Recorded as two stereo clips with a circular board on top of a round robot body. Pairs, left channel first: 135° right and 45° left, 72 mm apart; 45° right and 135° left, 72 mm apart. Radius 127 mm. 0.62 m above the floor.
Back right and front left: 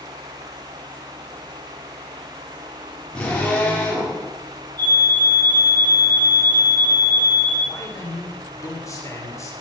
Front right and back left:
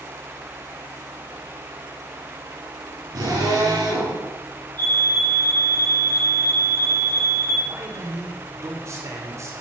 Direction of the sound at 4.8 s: 155° left.